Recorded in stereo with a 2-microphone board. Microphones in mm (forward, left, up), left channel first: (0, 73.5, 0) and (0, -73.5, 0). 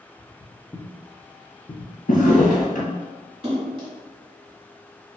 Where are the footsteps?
5° right (ahead or behind), 0.9 m; by 1.9 s 55° left (ahead or behind), 1.1 m.